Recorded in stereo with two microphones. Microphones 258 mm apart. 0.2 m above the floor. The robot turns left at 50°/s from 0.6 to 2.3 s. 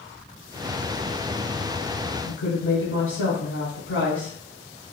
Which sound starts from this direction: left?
A woman speaking, at 2.2 s.